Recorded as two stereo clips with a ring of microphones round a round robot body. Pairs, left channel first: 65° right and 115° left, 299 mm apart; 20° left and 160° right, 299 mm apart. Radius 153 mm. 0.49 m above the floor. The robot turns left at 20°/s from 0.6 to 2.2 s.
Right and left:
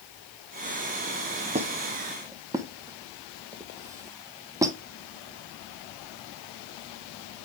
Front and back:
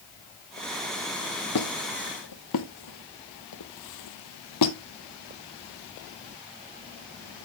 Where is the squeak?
45° left, 0.8 m; by 4.8 s 35° left, 0.8 m.